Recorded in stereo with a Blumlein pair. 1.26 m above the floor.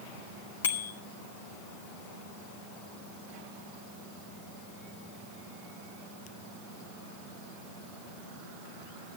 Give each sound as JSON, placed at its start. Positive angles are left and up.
{"t": 0.6, "sound": "a bicycle bell", "azimuth_deg": 60, "distance_m": 2.5}